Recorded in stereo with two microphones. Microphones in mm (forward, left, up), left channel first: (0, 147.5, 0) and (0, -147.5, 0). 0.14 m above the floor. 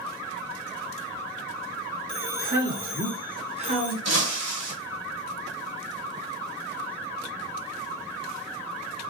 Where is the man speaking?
10° right (ahead or behind), 1.5 m; by 4.0 s 25° right (ahead or behind), 1.4 m.